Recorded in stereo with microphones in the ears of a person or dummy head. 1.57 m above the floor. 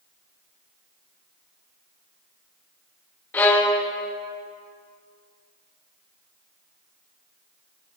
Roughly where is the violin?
Centre.